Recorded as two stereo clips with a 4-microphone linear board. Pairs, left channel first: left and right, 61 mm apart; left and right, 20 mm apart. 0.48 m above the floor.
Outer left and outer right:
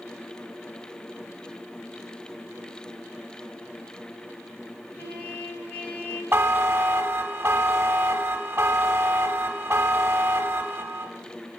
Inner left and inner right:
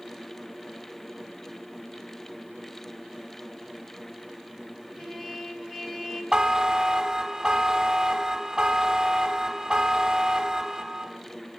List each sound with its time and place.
5.0 s a trumpet: 30° left (ahead or behind), 2 m
6.3 s a buzzer: 40° right (ahead or behind), 0.6 m